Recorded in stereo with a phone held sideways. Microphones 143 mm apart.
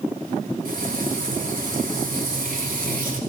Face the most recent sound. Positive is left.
turn(degrees=-85)